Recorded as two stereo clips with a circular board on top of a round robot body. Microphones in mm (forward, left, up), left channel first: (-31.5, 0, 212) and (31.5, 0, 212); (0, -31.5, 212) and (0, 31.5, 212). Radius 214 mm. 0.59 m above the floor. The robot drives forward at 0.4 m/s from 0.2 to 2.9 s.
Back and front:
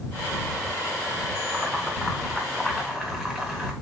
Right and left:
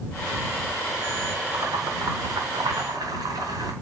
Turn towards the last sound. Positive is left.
turn(degrees=95)